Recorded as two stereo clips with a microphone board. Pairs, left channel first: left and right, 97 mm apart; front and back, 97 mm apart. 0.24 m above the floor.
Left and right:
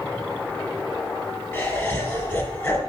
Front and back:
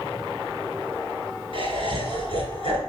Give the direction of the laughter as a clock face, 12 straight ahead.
11 o'clock.